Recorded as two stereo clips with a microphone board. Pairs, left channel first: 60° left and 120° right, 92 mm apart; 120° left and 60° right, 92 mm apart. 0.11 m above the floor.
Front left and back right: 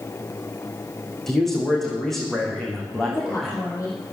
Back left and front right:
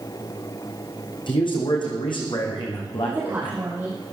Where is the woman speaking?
10° left, 4 m.